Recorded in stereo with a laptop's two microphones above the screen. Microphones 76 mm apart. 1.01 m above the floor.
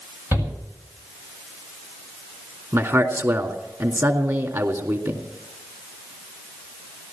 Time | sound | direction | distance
0.3 | a shout | 35° right (ahead or behind) | 7.5 m
2.7 | a man speaking | 40° right (ahead or behind) | 2.5 m